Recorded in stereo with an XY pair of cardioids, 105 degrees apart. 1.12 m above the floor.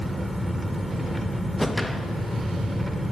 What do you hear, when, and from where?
0.0 s an engine running: 5° right, 1.6 m
1.6 s a whoosh: 5° left, 0.9 m